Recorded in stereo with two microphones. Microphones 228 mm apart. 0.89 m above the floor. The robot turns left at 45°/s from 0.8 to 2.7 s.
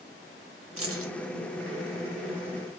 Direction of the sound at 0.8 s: 75° right (ahead or behind).